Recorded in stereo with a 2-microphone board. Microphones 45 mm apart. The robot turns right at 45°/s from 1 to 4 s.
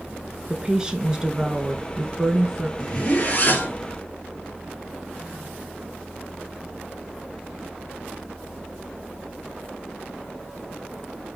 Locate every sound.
0.5 s a woman speaking: 20° right (ahead or behind), 1.1 m; by 2.7 s 15° right (ahead or behind), 1.1 m
2.8 s a zipper: 20° left, 2.5 m; by 3.8 s 65° left, 2.5 m